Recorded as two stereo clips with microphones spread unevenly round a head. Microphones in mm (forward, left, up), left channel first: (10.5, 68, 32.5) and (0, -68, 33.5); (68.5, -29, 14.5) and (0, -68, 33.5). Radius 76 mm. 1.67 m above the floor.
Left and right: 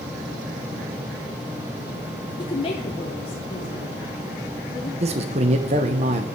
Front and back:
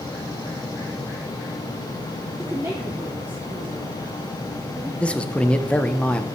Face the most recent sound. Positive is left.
turn(degrees=-50)